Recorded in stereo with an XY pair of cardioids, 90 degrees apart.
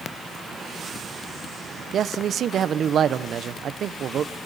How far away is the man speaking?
About 1.0 m.